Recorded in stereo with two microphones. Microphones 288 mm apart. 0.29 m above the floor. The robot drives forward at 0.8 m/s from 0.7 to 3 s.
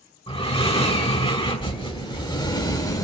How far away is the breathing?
About 1.6 m.